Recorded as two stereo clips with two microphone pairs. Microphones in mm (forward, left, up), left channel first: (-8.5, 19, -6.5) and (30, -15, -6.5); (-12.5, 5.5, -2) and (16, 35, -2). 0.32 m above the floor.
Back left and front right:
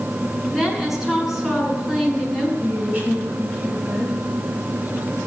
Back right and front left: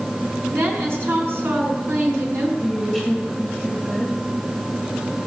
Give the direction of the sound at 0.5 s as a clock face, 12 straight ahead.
11 o'clock.